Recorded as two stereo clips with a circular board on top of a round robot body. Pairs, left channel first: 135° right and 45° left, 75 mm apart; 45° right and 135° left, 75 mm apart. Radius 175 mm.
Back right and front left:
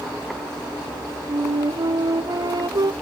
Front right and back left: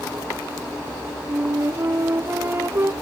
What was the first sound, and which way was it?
A flute, 75° left.